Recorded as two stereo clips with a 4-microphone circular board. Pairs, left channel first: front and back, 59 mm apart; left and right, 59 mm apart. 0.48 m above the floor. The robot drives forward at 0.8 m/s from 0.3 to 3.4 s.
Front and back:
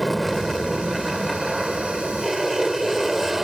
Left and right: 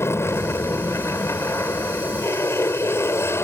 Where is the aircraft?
90° left; by 3.4 s 95° left.